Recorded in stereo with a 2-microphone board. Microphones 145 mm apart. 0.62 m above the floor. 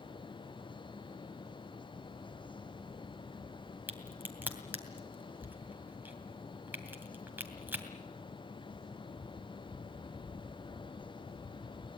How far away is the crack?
About 2.5 m.